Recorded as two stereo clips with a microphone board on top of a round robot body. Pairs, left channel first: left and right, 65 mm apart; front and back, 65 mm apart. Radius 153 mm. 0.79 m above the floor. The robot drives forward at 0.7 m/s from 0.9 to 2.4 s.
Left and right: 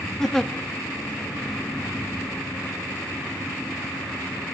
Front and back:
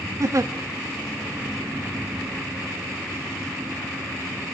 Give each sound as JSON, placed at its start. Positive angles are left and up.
{"t": 0.2, "sound": "a giggle", "azimuth_deg": 170, "distance_m": 0.6}